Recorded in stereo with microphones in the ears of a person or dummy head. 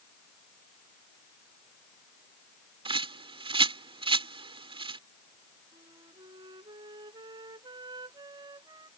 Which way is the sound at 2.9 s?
35° right (ahead or behind).